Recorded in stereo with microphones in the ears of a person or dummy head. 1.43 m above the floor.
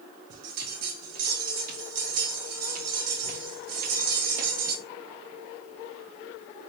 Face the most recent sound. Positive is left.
turn(degrees=-55)  # may be behind; listen again after turning